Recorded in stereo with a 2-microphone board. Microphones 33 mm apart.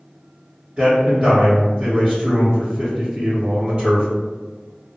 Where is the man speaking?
20° right (ahead or behind), 1.8 m.